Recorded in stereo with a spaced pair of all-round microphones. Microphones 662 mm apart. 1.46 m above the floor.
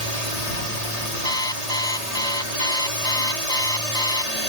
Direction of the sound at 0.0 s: 70° left (ahead or behind).